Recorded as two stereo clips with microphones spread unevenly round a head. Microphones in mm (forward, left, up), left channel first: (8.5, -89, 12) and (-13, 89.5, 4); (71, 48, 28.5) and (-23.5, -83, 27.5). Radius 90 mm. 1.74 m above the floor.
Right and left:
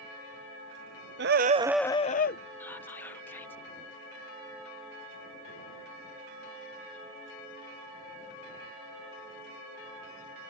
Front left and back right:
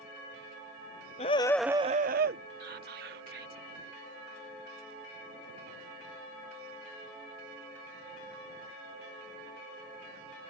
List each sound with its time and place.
1.2 s a scream: 105° left; by 2.4 s 105° right
2.6 s whispering: 160° right